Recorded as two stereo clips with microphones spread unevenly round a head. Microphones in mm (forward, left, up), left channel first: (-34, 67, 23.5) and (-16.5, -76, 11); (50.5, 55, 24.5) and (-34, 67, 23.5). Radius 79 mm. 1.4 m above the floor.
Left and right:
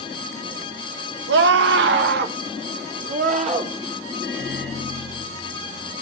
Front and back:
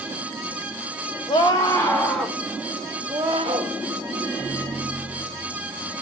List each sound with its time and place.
1.3 s a scream: 70° right, 1.5 m; by 3.8 s 130° right, 1.8 m
4.2 s a microwave: 85° right, 10 m